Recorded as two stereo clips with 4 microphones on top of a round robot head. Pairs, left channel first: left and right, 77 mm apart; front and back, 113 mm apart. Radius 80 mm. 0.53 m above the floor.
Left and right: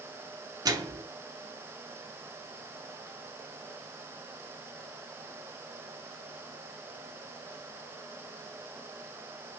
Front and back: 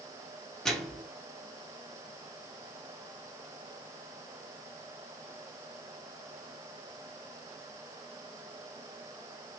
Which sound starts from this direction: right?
A microwave, at 0.7 s.